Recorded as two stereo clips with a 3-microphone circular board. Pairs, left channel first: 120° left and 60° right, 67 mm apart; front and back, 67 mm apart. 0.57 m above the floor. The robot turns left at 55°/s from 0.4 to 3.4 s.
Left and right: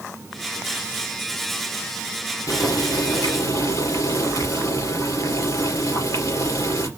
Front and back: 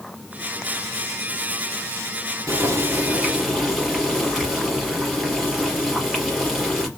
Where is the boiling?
145° left, 3.5 m; by 6.9 s 95° left, 3.5 m.